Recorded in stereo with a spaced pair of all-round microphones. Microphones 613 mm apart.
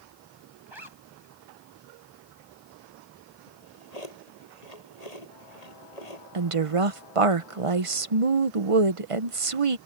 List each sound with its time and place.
0.7 s a zipper: 45° right (ahead or behind)
3.5 s a drawer: 80° left
6.3 s a woman speaking: 55° right (ahead or behind)